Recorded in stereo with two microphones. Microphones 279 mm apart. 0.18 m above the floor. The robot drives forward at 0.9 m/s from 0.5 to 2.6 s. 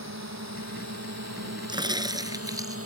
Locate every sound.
0.0 s a drone: 80° right; by 2.9 s 55° right (ahead or behind)
1.7 s a crack: 15° right (ahead or behind); by 2.8 s 10° right (ahead or behind)